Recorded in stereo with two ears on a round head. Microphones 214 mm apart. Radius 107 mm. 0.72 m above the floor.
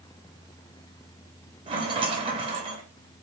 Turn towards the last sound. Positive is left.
turn(degrees=-20)  # may be behind; listen again after turning